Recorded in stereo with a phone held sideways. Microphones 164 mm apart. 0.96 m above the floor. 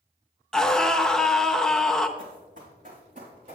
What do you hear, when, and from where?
0.5 s a scream: 5° left (ahead or behind), 0.6 m
2.2 s running footsteps: 55° right (ahead or behind), 3 m; by 3.5 s 50° right (ahead or behind), 4.5 m